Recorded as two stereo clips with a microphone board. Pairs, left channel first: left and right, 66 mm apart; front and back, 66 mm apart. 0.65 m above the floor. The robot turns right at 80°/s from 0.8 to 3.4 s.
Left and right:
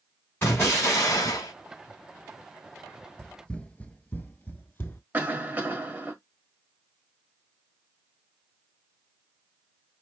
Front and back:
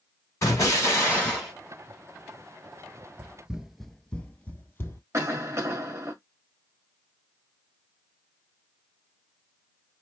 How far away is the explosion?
About 3 m.